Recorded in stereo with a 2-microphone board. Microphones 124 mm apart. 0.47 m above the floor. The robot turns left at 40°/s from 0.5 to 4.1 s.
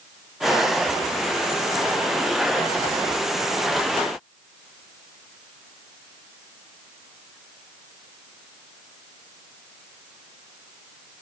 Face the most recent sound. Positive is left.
No sound to turn to.